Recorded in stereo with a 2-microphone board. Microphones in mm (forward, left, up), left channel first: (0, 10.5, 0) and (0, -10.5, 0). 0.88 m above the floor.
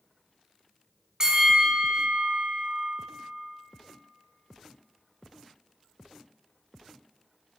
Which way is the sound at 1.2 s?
30° right (ahead or behind).